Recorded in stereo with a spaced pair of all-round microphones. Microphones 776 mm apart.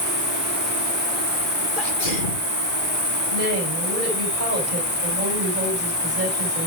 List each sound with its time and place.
0.0 s an insect: 30° left (ahead or behind), 3 m
1.8 s a sneeze: 85° left, 1.8 m
3.3 s a woman speaking: 75° right (ahead or behind), 5.5 m